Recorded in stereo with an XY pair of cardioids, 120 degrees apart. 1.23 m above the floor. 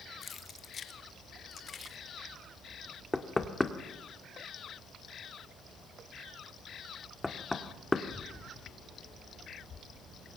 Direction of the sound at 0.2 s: 35° left.